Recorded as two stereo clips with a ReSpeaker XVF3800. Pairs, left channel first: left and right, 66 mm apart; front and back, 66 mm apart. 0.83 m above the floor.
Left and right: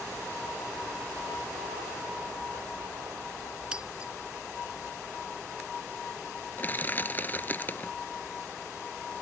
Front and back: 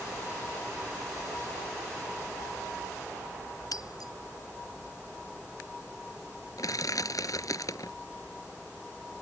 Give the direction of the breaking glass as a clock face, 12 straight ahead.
12 o'clock.